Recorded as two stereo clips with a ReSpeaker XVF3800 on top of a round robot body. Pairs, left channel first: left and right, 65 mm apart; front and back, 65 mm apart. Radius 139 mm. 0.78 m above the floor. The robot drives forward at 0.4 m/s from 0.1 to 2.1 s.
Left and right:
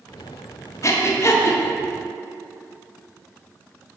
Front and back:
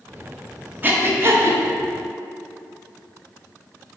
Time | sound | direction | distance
0.8 | breathing | 125° left | 1.2 m